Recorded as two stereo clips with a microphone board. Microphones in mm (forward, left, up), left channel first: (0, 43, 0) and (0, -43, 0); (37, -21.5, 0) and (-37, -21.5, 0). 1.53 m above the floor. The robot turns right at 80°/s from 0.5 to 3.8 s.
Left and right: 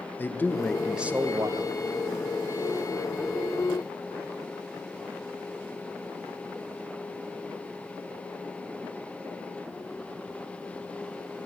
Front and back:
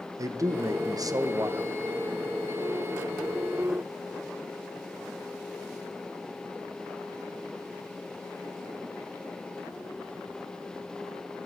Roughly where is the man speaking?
Behind left.